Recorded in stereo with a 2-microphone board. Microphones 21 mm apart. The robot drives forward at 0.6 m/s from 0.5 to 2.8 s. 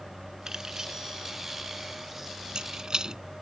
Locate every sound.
0.5 s keys jangling: 35° right (ahead or behind); by 3.2 s 45° right (ahead or behind)